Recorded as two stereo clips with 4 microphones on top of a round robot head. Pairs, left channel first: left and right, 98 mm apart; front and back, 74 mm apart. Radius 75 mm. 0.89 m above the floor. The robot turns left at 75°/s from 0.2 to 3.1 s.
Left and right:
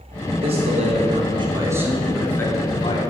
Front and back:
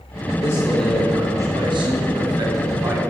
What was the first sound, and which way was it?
A man speaking, 55° right.